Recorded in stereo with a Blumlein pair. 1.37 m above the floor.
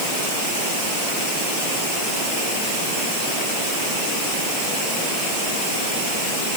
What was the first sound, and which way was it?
Only background noise.